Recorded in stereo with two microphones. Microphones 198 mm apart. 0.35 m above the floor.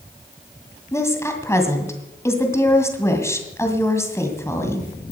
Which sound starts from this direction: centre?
A woman speaking, at 0.9 s.